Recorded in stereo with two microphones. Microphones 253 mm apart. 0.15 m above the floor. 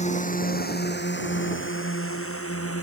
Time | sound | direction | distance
0.0 | a drone | 30° left (ahead or behind) | ?